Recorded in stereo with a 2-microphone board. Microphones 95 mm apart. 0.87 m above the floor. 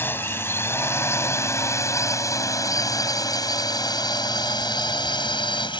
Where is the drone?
20° left (ahead or behind); by 5.8 s 55° left (ahead or behind).